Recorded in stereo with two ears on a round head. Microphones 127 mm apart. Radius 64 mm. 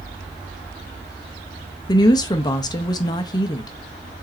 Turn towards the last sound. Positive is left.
turn(degrees=30)  # may be behind; listen again after turning